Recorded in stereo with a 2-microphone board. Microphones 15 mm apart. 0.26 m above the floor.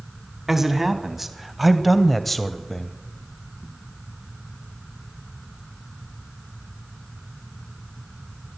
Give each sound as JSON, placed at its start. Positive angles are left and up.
{"t": 0.5, "sound": "a man speaking", "side_deg": -20, "distance_m": 1.7}